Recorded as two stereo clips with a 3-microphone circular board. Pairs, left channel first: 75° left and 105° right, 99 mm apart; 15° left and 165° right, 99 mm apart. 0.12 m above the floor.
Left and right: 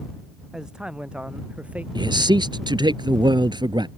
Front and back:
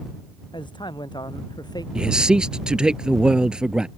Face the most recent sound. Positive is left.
turn(degrees=-85)